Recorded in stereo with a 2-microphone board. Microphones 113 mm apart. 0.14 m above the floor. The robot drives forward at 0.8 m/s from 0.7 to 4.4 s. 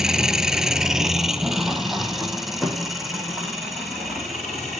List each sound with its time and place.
0.0 s an engine running: 5° right (ahead or behind), 0.8 m; by 4.8 s centre (ahead or behind), 3.5 m